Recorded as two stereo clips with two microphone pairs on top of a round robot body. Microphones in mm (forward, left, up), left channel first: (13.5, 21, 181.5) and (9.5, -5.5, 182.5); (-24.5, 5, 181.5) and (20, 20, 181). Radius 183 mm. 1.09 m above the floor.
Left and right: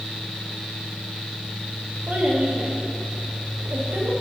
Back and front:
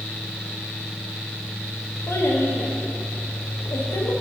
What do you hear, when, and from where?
2.1 s a child speaking: 130° right, 1.2 m